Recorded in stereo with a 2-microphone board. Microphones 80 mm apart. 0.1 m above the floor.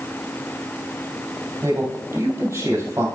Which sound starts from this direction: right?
A man speaking, at 1.6 s.